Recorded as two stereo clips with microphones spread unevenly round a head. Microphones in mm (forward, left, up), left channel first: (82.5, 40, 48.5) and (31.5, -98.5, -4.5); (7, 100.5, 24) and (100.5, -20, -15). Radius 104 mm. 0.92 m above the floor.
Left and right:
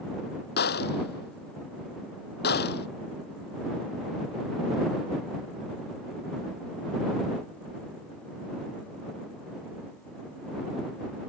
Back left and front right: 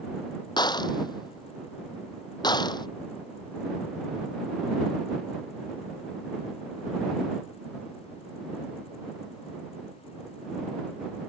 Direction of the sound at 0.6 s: 65° left.